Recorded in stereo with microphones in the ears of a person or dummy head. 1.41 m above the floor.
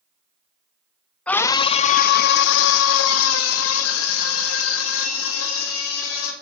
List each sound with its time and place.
1.3 s a scream: 10° left (ahead or behind), 0.6 m; by 6.3 s 80° left, 3 m